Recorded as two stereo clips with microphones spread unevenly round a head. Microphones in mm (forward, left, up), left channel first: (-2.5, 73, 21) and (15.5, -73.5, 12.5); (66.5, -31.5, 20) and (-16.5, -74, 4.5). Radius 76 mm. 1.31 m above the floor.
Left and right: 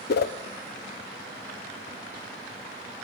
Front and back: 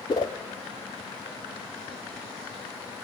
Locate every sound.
0.1 s a whoosh: 90° left, 0.7 m